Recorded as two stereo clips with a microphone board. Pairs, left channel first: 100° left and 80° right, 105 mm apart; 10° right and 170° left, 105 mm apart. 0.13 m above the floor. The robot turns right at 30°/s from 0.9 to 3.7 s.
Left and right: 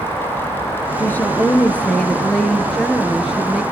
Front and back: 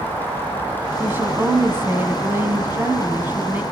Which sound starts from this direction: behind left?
A woman speaking, at 1.0 s.